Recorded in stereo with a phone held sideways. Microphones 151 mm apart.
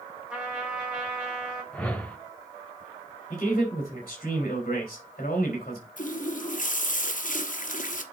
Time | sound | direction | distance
0.3 | a trumpet | 5° right (ahead or behind) | 2.5 m
1.7 | a whoosh | 5° left (ahead or behind) | 0.9 m
3.3 | a man speaking | 55° left (ahead or behind) | 3 m
6.0 | a running tap | 60° left (ahead or behind) | 1.0 m